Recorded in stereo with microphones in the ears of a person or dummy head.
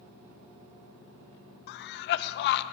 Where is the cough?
60° left (ahead or behind), 0.7 m.